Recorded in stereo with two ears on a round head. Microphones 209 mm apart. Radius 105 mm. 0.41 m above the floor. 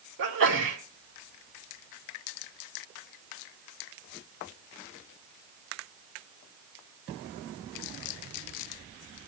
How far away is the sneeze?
About 3.5 m.